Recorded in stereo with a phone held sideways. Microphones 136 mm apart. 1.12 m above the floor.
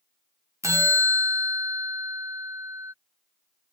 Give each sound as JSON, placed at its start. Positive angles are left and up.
{"t": 0.6, "sound": "a bell", "side_deg": -20}